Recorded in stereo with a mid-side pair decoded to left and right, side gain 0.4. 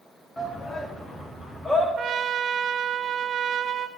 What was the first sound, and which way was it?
A shout, 25° left.